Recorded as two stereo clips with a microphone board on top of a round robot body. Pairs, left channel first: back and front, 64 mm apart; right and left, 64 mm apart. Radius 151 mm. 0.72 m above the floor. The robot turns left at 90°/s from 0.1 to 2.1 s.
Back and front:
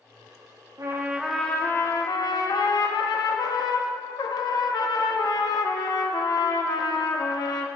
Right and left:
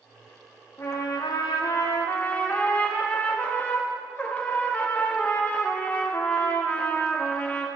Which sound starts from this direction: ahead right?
A trumpet, at 0.8 s.